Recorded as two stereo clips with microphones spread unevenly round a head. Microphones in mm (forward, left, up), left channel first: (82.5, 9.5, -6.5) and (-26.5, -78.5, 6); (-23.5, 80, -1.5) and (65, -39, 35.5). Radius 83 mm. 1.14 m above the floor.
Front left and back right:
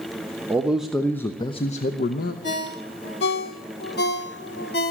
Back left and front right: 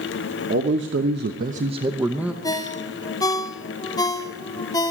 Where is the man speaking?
65° right, 1.1 m; by 2.3 s 35° left, 0.9 m.